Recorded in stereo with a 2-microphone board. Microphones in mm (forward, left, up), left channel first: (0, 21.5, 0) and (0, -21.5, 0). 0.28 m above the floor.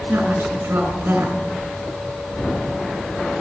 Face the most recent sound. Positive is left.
turn(degrees=-60)  # may be behind; listen again after turning